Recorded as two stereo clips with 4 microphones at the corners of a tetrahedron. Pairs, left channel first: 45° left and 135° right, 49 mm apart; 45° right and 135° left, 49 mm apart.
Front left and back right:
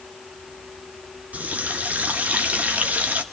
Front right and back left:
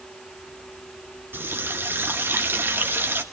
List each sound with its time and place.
1.3 s a running tap: 170° left, 1.5 m